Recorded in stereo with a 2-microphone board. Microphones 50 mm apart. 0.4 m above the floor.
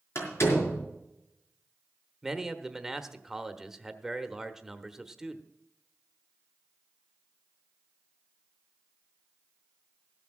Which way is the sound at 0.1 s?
60° left (ahead or behind).